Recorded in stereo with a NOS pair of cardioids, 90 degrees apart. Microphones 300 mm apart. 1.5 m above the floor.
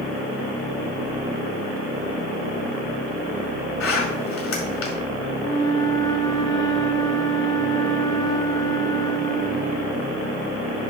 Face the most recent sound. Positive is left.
turn(degrees=15)